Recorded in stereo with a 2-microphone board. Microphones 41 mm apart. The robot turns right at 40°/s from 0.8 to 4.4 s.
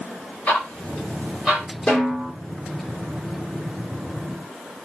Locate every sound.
0.5 s ticking: 40° left (ahead or behind), 1.9 m; by 1.7 s 5° left (ahead or behind), 1.9 m
1.9 s a snare drum: 20° left (ahead or behind), 2 m; by 2.3 s 5° left (ahead or behind), 2 m